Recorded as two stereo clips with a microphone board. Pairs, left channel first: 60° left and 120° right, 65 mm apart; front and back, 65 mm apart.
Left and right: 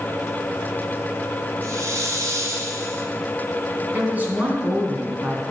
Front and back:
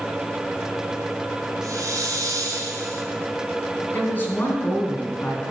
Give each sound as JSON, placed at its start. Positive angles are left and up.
{"t": 1.6, "sound": "a hiss", "azimuth_deg": -155, "distance_m": 2.5}
{"t": 3.9, "sound": "a woman speaking", "azimuth_deg": -55, "distance_m": 3.5}